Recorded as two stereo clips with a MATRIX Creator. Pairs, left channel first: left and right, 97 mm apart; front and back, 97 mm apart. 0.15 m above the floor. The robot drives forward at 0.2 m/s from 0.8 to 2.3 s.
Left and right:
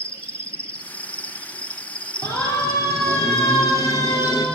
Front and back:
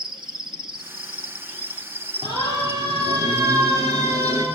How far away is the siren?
About 4 m.